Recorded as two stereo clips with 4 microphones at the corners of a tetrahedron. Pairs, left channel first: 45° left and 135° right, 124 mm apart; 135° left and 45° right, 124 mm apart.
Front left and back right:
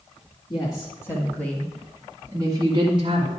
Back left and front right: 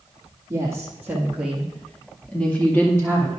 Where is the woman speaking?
15° left, 2.0 m; by 3.3 s 160° right, 2 m.